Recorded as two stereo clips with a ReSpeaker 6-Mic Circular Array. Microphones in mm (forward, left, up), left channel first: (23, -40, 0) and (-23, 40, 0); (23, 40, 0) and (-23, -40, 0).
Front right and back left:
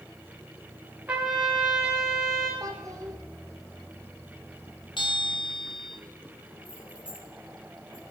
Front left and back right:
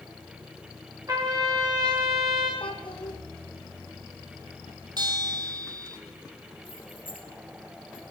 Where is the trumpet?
170° right, 5.5 m.